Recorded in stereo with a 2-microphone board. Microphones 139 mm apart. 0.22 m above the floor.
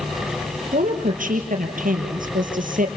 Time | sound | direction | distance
0.7 | a woman speaking | 75° right (ahead or behind) | 4.5 m